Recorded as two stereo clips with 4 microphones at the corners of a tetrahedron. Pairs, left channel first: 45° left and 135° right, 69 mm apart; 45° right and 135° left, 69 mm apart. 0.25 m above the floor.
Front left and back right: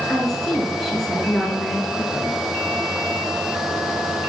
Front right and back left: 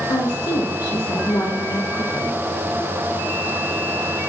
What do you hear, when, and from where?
0.1 s a woman speaking: 40° right, 4.5 m